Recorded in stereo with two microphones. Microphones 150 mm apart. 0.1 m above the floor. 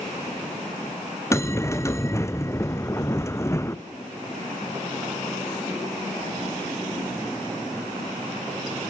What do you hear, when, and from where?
1.3 s a bell: 20° left (ahead or behind), 1.3 m